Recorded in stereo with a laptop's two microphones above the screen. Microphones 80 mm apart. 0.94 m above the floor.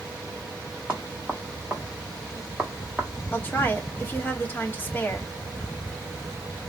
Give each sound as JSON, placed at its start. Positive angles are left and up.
{"t": 0.9, "sound": "knocking", "side_deg": -15, "distance_m": 2.0}
{"t": 3.3, "sound": "a woman speaking", "side_deg": 25, "distance_m": 1.4}